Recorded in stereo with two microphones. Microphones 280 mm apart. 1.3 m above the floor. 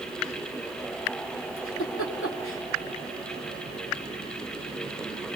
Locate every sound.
1.6 s a giggle: 50° left (ahead or behind), 2.5 m